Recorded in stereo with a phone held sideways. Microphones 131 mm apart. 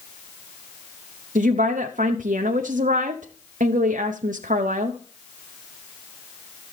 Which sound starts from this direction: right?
A woman speaking, at 1.4 s.